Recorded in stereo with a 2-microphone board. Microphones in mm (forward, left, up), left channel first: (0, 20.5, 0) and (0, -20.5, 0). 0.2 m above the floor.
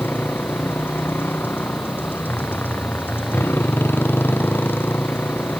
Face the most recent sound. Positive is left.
turn(degrees=55)  # may be behind; listen again after turning